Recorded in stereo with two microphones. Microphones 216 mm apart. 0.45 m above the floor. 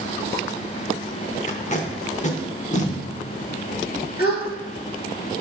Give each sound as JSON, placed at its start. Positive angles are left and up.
{"t": 1.5, "sound": "tape being pulled", "side_deg": 35, "distance_m": 0.7}
{"t": 4.2, "sound": "a gasp", "side_deg": 45, "distance_m": 1.2}